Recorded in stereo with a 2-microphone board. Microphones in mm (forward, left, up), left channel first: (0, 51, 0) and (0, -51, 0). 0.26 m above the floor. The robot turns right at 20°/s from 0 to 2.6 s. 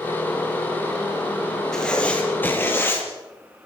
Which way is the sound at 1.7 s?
5° left (ahead or behind).